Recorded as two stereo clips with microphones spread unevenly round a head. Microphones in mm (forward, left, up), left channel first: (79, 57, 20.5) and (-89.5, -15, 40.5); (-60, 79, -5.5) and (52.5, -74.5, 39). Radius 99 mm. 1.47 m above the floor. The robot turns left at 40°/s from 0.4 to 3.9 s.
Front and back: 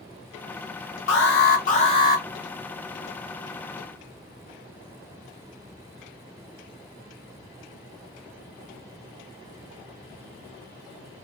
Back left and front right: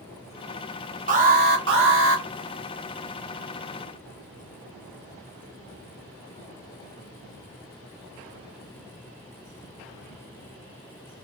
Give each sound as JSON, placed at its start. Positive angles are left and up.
{"t": 1.1, "sound": "an alarm", "azimuth_deg": -5, "distance_m": 1.3}